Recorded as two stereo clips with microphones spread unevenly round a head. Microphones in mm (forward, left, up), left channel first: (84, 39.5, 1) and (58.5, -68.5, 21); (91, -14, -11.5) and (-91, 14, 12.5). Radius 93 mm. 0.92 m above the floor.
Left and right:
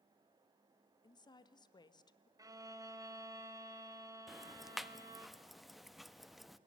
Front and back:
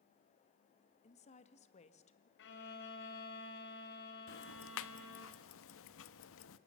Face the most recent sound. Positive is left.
turn(degrees=-10)